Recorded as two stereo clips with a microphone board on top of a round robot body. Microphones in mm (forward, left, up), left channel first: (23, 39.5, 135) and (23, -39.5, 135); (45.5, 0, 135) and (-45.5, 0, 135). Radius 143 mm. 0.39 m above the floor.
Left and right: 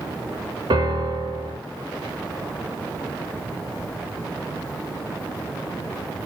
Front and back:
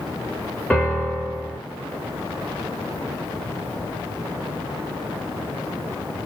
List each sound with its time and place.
0.7 s a piano: 85° right, 8 m